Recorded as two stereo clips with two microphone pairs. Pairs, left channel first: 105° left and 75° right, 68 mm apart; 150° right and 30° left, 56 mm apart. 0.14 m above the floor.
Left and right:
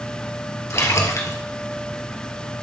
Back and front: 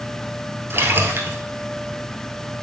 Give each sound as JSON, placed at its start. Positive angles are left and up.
{"t": 0.7, "sound": "a splash", "azimuth_deg": 65, "distance_m": 1.2}